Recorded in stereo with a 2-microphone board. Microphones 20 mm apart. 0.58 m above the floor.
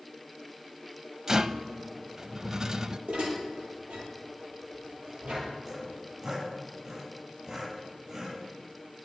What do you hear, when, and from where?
1.3 s a rattle: 25° right (ahead or behind), 0.6 m
3.1 s dishes clattering: 75° right (ahead or behind), 9.5 m
5.7 s sawing: 40° right (ahead or behind), 9 m